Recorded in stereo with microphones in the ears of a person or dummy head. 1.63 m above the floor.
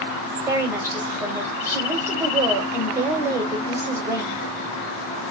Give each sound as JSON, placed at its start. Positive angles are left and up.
{"t": 0.5, "sound": "a woman speaking", "side_deg": -10, "distance_m": 1.0}